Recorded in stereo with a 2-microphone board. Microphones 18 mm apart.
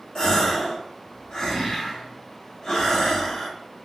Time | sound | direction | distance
0.1 | a gasp | 50° left (ahead or behind) | 1.2 m